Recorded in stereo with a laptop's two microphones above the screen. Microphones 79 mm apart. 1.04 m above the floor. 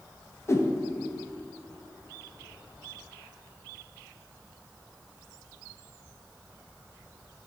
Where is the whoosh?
35° left (ahead or behind), 0.6 m.